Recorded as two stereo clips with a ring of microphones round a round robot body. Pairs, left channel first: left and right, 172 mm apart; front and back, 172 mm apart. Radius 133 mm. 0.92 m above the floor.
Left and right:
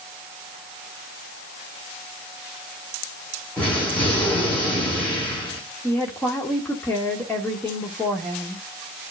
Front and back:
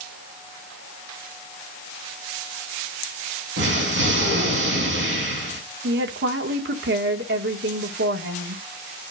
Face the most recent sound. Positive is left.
turn(degrees=175)